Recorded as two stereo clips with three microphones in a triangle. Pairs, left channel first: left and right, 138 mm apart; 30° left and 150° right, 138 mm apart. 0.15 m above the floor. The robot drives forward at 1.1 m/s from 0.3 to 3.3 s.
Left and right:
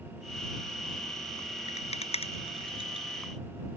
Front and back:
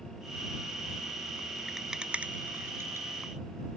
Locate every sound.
1.7 s a rattle: 120° left; by 3.1 s 140° left